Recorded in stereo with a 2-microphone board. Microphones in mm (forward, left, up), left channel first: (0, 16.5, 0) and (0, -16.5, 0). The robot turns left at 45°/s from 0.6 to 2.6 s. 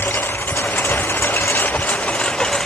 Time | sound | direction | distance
0.0 | a lawn mower | 75° left (ahead or behind) | ?